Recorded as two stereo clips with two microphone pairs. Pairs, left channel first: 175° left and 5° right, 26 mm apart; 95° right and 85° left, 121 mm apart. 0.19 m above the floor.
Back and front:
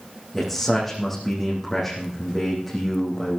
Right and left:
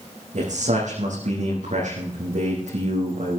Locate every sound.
0.3 s a man speaking: 90° left, 7 m